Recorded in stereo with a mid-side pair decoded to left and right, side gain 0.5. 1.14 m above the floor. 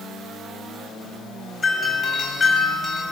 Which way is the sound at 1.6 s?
40° left.